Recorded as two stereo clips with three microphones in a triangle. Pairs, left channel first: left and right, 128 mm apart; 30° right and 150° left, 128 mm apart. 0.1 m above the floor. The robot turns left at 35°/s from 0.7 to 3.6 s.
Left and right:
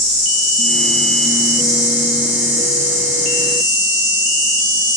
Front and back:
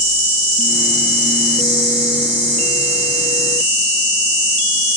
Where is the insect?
70° right, 1.5 m; by 5.0 s 175° right, 1.5 m.